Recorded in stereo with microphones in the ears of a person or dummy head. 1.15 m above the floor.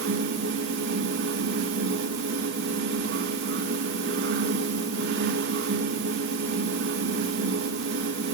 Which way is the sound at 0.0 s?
55° right (ahead or behind).